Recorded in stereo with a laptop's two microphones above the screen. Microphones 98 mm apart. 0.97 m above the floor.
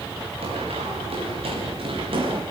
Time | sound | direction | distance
0.4 | running footsteps | 80° right | 7.5 m